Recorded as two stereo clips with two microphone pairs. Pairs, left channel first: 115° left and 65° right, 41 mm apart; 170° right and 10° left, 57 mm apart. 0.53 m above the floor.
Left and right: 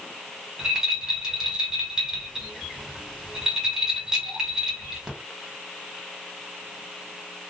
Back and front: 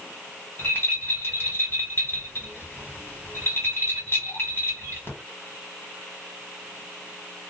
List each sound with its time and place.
0.6 s a rattle: 135° right, 1.5 m